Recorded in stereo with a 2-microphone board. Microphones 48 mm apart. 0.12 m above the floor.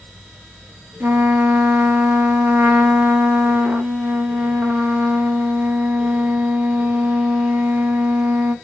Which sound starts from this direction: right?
A trumpet, at 1.0 s.